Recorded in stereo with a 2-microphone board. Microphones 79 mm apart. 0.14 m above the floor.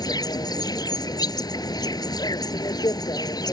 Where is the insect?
55° left (ahead or behind).